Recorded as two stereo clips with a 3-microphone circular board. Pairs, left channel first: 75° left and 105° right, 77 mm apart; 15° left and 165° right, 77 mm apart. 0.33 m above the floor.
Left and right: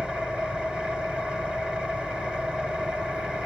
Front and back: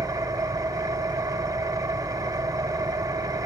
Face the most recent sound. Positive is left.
turn(degrees=180)